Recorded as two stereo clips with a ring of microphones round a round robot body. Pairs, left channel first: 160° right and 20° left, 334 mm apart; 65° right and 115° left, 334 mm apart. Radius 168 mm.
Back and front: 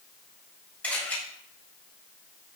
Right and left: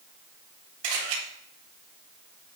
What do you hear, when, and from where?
0.8 s a camera shutter: 115° left, 4.5 m